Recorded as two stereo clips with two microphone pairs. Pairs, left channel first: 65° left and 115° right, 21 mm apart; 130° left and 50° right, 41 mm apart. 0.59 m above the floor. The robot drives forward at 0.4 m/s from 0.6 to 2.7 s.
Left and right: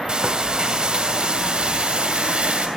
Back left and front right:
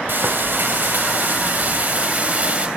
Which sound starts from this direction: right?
Frying, at 0.1 s.